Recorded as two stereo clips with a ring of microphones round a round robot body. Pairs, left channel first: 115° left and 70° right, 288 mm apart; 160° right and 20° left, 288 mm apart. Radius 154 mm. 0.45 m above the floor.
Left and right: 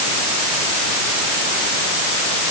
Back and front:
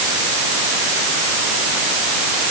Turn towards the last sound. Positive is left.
No sound to turn to.